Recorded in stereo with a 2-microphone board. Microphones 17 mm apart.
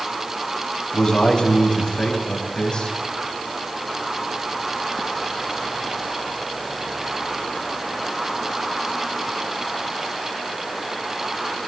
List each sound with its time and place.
0.9 s a man speaking: 55° left (ahead or behind), 6.5 m